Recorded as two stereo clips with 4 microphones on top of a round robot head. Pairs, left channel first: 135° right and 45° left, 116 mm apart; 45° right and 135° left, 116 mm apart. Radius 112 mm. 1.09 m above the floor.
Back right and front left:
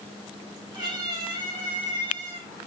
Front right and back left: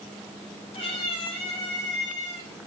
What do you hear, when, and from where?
0.7 s a cat meowing: 5° right, 5.5 m; by 2.5 s 10° right, 4 m